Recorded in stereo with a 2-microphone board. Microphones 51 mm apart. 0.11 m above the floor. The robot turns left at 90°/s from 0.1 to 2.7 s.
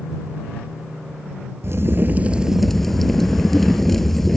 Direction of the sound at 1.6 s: 95° right.